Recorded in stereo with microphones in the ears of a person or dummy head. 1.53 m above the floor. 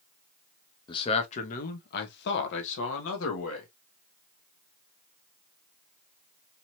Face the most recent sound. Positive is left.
turn(degrees=85)